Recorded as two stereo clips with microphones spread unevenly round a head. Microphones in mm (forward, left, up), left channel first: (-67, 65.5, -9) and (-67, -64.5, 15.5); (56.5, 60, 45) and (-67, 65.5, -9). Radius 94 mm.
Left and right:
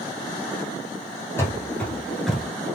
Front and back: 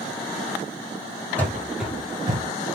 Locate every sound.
1.4 s running footsteps: 10° left, 1.1 m; by 2.4 s 130° right, 0.9 m